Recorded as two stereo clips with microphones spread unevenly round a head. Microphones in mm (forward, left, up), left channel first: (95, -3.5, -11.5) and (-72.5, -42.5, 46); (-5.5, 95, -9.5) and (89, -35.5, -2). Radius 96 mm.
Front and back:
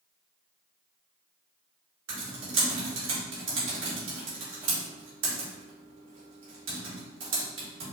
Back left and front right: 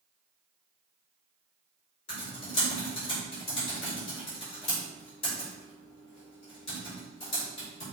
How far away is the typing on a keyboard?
About 2 m.